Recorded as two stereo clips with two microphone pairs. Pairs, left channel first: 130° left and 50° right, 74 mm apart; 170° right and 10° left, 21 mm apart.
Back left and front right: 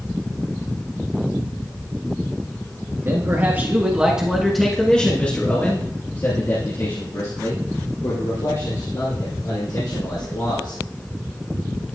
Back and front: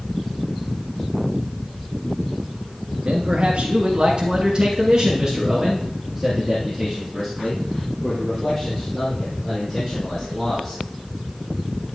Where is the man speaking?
Straight ahead, 2 m; by 10.8 s 115° left, 5.5 m.